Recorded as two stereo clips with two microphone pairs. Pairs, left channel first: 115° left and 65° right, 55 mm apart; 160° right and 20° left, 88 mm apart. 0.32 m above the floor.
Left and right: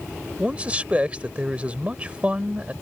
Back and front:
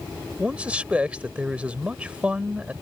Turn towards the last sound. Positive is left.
turn(degrees=-40)